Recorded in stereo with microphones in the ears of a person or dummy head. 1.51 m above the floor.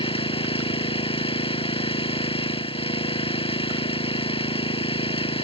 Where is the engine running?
25° left (ahead or behind).